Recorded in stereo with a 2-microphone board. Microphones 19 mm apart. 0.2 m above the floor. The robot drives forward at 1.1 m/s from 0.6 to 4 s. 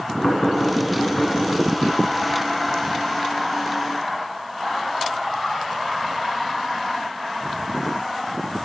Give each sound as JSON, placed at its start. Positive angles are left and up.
{"t": 0.2, "sound": "knocking", "side_deg": 45, "distance_m": 1.4}